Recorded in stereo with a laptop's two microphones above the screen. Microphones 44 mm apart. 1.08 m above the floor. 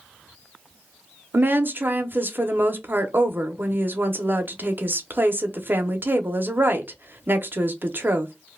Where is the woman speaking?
55° right (ahead or behind), 0.6 m.